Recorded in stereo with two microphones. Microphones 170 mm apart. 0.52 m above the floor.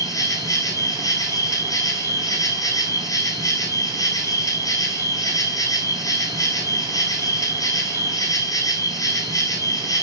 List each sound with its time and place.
0.0 s an insect: 20° left (ahead or behind), 0.9 m